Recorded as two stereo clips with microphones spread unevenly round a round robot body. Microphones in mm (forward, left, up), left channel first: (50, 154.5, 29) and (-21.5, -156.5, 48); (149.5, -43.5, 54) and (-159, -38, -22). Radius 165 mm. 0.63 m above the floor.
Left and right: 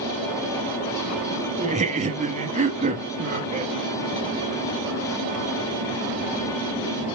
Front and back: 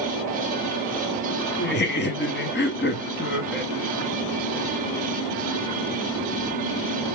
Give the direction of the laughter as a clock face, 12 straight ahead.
2 o'clock.